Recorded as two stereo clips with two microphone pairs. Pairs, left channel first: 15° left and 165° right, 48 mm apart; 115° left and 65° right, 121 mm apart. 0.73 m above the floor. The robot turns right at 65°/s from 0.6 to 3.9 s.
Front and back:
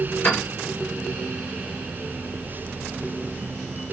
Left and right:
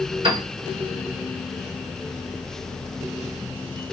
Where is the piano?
30° right, 1.8 m.